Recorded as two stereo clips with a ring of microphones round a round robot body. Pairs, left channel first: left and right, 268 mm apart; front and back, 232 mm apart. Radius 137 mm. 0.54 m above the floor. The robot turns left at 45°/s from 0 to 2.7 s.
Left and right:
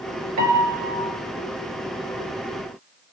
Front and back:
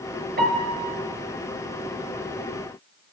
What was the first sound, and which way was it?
A piano, 120° right.